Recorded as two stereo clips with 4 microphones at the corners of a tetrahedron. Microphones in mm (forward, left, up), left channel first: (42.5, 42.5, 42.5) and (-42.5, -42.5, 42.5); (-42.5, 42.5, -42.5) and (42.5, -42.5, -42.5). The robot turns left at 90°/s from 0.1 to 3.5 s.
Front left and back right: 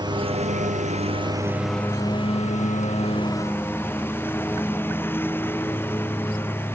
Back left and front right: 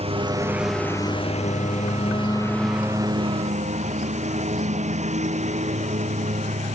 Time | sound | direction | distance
0.0 | a lawn mower | 80° right | ?